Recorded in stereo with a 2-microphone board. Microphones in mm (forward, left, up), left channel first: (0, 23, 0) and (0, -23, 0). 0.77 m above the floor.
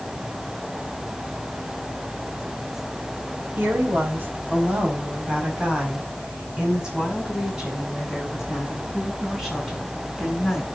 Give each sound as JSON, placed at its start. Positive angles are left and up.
{"t": 3.6, "sound": "a woman speaking", "side_deg": -55, "distance_m": 3.5}